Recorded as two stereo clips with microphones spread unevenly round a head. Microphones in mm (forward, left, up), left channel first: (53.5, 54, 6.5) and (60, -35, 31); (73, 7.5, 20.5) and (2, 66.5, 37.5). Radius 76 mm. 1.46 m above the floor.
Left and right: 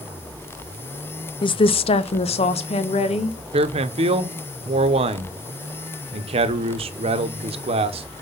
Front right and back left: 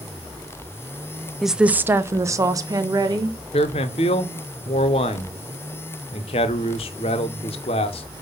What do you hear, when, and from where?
1.4 s a woman speaking: 55° left, 0.5 m; by 3.4 s 95° left, 1.6 m
3.5 s a man speaking: 75° right, 0.8 m